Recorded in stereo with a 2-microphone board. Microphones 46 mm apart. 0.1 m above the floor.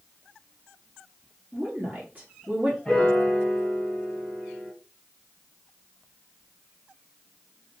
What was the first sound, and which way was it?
A woman speaking, 35° right (ahead or behind).